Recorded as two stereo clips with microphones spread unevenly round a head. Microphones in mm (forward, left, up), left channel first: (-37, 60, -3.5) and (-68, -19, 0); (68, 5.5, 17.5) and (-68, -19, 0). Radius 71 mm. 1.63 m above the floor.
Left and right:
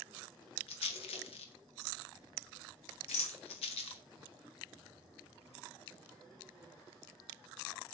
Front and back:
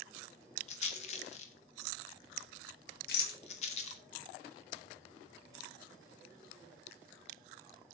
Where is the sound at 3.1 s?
35° left, 1.7 m.